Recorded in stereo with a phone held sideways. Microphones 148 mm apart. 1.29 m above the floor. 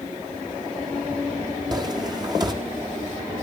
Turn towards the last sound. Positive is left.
turn(degrees=-30)  # may be behind; listen again after turning